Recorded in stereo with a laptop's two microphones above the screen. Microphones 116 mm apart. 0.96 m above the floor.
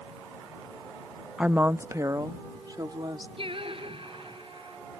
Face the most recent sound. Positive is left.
turn(degrees=-50)  # may be behind; listen again after turning